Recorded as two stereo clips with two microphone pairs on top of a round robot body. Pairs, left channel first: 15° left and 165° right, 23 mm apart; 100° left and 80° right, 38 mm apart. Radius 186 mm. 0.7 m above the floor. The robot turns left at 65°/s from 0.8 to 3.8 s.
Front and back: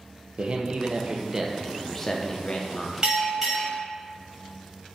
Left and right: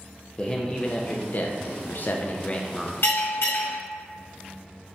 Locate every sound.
0.4 s a man speaking: 160° left, 0.7 m; by 2.9 s 25° left, 0.7 m
3.0 s a bell: 130° left, 1.3 m; by 3.8 s 80° left, 1.3 m